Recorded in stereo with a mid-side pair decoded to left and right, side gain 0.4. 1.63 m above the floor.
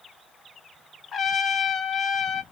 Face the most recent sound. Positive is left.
turn(degrees=55)